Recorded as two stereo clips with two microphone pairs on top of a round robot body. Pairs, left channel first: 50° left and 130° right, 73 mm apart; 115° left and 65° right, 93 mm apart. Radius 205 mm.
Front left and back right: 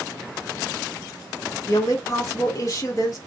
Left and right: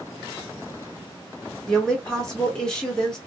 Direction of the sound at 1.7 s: 30° left.